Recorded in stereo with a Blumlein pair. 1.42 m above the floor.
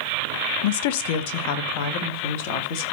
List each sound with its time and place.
0.6 s a woman speaking: 50° left, 0.8 m